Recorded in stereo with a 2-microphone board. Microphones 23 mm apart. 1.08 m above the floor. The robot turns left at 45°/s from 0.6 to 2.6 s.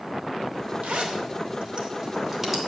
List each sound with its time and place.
0.8 s a zipper: 85° right, 2.5 m; by 2.6 s 5° right (ahead or behind), 2.5 m